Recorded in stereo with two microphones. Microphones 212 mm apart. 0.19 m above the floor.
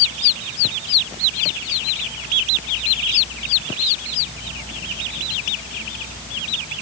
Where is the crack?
I don't hear a crack.